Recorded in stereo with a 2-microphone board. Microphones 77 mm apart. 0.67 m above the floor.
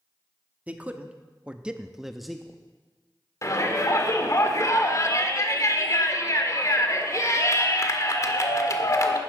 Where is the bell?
I don't hear a bell.